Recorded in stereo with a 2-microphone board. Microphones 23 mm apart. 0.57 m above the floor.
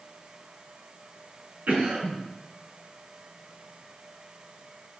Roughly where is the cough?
Right.